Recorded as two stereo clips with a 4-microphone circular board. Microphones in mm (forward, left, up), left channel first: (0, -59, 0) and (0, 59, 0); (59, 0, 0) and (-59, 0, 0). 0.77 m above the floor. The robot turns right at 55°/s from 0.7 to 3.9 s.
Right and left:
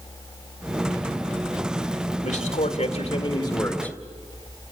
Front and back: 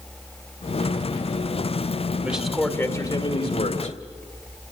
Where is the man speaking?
105° right, 2 m; by 4.0 s 10° right, 2 m.